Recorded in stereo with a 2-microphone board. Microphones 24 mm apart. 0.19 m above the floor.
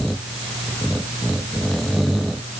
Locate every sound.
Only background noise.